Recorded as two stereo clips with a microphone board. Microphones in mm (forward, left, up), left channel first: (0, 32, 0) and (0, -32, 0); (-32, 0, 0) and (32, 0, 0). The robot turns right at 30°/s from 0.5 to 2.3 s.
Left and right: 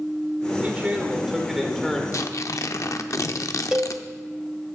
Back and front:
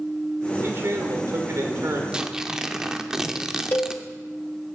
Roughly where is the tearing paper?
Left.